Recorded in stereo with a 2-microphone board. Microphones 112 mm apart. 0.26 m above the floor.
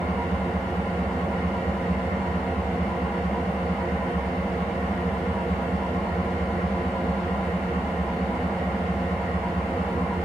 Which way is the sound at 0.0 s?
Centre (ahead or behind).